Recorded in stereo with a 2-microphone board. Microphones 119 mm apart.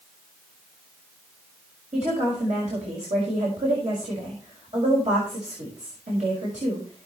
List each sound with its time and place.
1.9 s a woman speaking: 85° right, 5 m